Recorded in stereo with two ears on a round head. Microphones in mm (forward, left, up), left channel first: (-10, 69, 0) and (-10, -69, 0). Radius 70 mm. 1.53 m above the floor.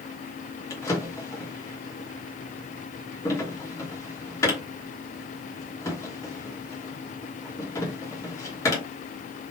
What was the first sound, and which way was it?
A drawer, 20° left (ahead or behind).